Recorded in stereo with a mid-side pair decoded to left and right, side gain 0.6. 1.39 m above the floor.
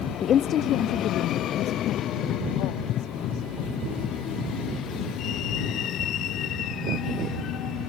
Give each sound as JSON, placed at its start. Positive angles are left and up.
{"t": 0.2, "sound": "a woman speaking", "azimuth_deg": 40}